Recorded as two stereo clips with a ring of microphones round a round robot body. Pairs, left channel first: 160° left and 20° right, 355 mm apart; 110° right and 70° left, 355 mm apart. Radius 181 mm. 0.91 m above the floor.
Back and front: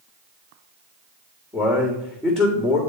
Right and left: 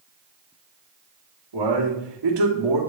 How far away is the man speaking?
About 2.5 m.